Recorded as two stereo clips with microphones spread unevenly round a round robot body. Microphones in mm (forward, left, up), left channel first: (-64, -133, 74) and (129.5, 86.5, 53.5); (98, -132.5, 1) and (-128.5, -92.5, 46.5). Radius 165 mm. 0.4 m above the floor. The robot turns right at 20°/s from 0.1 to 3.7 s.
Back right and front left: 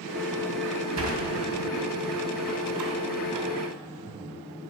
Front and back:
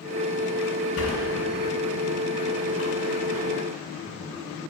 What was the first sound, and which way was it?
A sliding door, 25° left.